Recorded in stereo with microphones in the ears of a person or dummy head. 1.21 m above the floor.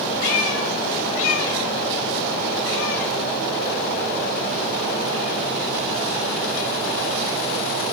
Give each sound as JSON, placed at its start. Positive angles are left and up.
{"t": 0.2, "sound": "a cat meowing", "side_deg": 80, "distance_m": 2.5}